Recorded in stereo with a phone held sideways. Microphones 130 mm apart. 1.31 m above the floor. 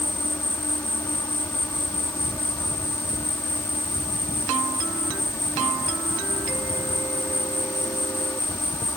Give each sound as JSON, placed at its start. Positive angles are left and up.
{"t": 0.0, "sound": "an insect", "side_deg": 20}